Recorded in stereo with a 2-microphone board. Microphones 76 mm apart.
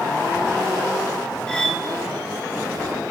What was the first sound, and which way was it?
Cutlery clinking, 10° left (ahead or behind).